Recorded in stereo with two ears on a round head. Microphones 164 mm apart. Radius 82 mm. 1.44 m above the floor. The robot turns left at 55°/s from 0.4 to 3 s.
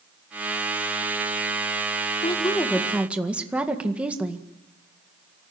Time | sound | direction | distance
2.2 | a woman speaking | 35° left | 1.8 m